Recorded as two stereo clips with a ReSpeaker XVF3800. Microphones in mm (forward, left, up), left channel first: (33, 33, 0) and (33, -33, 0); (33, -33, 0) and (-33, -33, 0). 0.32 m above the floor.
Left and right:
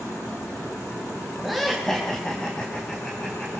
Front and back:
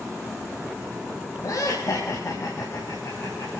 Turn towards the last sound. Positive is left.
turn(degrees=20)